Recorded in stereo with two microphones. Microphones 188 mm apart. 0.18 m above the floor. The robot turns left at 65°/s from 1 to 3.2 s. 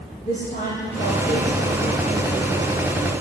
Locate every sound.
0.2 s a woman speaking: 140° left, 9.5 m; by 3.1 s 5° left, 9.5 m